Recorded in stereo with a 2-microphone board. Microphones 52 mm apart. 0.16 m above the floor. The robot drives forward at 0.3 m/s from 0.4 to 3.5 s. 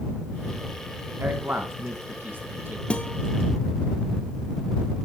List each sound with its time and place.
1.2 s a man speaking: 40° right (ahead or behind), 1.7 m
2.9 s a guitar: 20° left (ahead or behind), 1.0 m